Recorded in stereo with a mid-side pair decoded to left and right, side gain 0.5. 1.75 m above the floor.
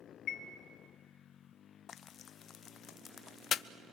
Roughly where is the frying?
Ahead left.